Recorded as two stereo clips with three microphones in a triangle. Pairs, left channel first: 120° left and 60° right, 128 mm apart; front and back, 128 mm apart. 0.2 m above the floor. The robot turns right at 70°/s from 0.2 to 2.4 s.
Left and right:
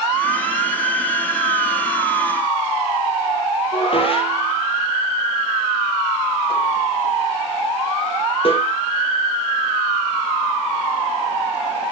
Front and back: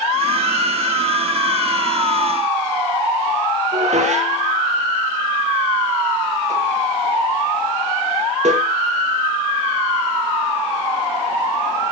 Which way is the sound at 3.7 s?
160° left.